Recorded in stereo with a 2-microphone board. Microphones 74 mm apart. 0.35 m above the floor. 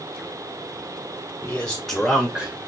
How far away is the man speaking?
About 1.3 m.